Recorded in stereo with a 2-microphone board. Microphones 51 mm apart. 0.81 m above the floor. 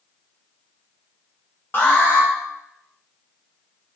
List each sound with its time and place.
1.7 s an alarm: 45° left (ahead or behind), 0.6 m